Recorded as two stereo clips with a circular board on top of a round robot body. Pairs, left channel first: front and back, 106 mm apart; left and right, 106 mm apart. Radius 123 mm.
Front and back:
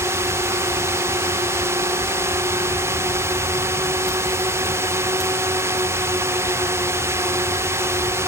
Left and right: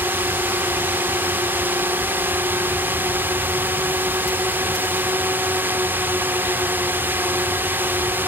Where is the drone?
145° right.